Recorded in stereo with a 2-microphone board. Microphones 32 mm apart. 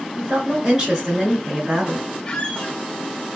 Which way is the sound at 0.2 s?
15° right (ahead or behind).